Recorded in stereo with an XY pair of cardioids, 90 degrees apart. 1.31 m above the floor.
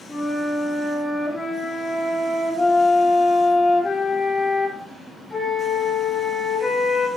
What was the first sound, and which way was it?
A flute, 20° left.